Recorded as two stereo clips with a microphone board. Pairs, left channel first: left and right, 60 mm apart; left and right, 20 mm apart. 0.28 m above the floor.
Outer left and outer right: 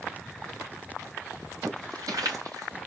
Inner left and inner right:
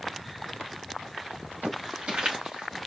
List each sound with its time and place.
1.6 s footsteps: 75° right (ahead or behind), 4 m